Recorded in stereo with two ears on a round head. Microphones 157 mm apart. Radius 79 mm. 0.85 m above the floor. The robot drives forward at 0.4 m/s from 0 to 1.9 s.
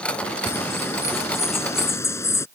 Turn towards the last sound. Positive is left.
turn(degrees=15)  # may be behind; listen again after turning